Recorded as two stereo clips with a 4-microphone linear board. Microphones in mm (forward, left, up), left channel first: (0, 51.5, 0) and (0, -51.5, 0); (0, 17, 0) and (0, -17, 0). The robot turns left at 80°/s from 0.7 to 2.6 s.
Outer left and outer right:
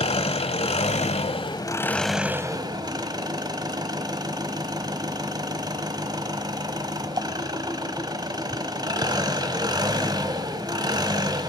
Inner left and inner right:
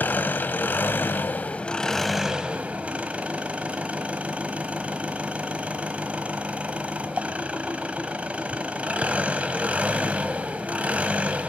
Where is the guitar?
No guitar in this recording.